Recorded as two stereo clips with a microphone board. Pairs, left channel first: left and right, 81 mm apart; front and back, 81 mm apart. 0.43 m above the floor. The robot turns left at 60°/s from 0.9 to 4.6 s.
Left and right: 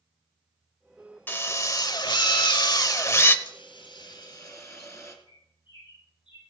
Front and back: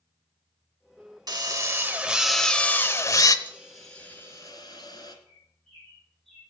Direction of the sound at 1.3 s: 150° left.